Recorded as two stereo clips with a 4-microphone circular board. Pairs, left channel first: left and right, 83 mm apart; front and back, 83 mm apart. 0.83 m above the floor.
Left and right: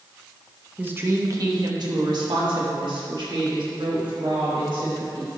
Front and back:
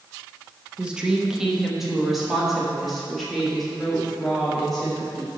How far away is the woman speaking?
About 0.8 m.